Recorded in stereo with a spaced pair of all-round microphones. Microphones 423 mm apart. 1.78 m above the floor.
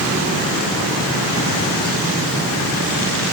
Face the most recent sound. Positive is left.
No sound to turn to.